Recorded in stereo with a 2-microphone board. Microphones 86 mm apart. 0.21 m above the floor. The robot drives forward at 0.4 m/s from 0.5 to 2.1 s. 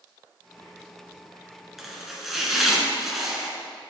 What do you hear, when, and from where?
1.8 s chopping: centre (ahead or behind), 1.6 m